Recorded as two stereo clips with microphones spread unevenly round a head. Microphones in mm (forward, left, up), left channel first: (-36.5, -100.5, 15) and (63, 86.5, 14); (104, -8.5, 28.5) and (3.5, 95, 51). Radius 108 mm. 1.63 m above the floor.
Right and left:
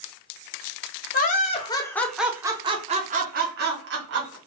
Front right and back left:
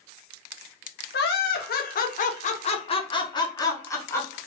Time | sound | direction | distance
1.1 | laughter | 75° right | 0.8 m